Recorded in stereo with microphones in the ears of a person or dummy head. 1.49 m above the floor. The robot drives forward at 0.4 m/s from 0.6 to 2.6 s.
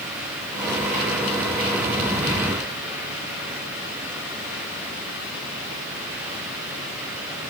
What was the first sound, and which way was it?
Only background noise.